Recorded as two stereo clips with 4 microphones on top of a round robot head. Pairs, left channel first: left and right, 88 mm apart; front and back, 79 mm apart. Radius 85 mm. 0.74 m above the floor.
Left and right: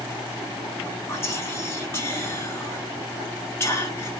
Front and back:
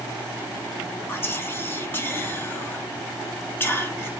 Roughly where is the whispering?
Ahead left.